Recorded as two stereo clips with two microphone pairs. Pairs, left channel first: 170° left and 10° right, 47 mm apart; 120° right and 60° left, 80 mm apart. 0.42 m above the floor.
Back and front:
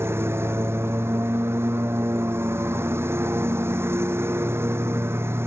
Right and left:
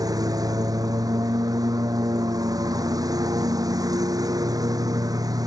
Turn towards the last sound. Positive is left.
turn(degrees=25)